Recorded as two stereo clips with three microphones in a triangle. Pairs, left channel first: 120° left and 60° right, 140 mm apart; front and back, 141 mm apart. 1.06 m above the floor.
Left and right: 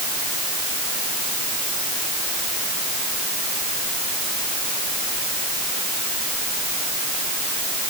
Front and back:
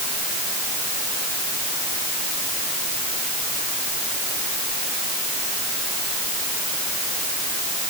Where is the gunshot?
I don't hear a gunshot.